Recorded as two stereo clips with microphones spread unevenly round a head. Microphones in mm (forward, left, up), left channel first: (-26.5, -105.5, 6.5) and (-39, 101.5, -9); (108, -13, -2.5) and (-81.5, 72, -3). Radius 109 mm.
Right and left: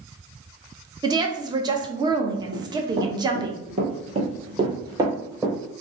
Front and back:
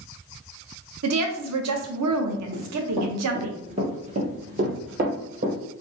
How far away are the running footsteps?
About 1.6 m.